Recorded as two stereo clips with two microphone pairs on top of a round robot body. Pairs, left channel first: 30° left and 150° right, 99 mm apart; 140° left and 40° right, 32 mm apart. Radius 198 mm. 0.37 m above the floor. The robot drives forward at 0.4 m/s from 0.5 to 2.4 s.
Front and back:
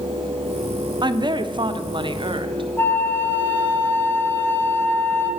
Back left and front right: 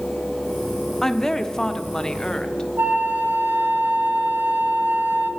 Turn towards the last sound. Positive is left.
turn(degrees=-45)